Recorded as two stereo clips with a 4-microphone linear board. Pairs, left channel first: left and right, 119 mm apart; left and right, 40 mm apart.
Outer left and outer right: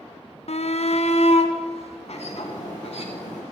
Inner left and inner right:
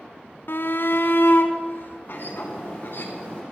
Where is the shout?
60° left (ahead or behind), 0.8 m.